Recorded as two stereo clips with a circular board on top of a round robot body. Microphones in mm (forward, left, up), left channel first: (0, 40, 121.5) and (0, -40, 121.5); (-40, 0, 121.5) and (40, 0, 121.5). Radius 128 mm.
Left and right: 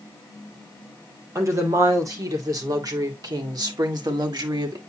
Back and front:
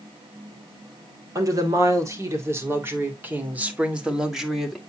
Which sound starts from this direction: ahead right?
A woman speaking, at 1.4 s.